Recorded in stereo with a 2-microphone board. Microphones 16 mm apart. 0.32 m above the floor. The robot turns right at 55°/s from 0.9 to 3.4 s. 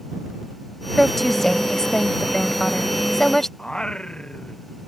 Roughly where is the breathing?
No breathing in this recording.